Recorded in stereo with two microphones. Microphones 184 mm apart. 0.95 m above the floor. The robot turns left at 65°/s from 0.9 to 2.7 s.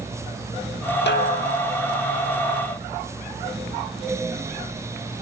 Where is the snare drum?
110° left, 1.2 m; by 1.8 s 60° left, 1.2 m.